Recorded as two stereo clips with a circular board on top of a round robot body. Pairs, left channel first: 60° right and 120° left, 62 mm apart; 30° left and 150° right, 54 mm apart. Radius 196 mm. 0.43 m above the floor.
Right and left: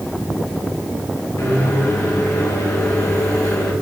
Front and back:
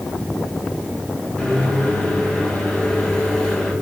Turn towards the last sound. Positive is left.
turn(degrees=-40)